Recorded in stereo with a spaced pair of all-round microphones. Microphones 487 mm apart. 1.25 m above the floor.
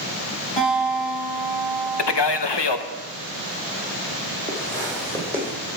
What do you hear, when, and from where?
0.6 s a guitar: 85° left, 5 m
2.0 s a man speaking: 60° left (ahead or behind), 0.8 m
4.5 s footsteps: 10° left (ahead or behind), 3 m; by 5.5 s centre (ahead or behind), 3.5 m